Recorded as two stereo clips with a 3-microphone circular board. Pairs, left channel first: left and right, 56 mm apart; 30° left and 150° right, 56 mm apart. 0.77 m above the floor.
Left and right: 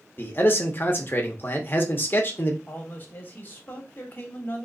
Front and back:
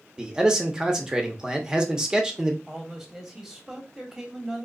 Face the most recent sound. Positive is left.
turn(degrees=125)